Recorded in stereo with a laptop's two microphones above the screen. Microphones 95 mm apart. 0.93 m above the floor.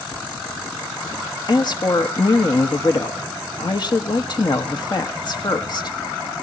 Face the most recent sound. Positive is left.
turn(degrees=50)  # may be behind; listen again after turning